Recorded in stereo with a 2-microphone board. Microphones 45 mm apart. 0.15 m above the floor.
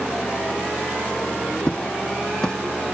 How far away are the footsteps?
About 0.6 m.